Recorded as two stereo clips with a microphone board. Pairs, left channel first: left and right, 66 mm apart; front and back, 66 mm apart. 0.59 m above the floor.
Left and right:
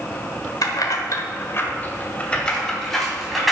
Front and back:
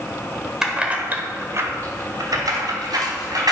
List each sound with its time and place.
0.6 s keys jangling: 100° left, 1.5 m; by 3.5 s straight behind, 3 m